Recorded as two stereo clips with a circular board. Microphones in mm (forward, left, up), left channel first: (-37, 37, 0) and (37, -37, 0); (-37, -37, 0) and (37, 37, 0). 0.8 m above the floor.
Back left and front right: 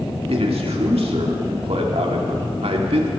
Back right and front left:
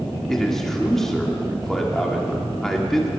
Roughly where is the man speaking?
Ahead right.